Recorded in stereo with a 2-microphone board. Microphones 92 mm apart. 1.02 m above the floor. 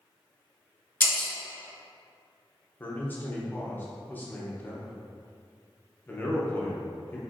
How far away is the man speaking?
About 0.7 m.